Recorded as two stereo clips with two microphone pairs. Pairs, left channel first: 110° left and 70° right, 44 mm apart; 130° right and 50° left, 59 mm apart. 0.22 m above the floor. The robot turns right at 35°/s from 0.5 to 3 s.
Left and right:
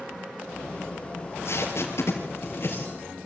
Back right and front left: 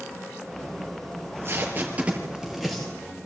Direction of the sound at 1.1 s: 85° left.